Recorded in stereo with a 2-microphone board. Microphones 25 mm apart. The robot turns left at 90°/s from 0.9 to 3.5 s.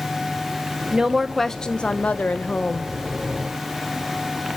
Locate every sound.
0.9 s a woman speaking: 145° right, 0.8 m; by 2.9 s 35° left, 0.8 m